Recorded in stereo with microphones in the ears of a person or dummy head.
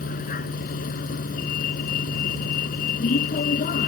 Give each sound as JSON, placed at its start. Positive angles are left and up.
{"t": 0.0, "sound": "a vehicle", "side_deg": 45}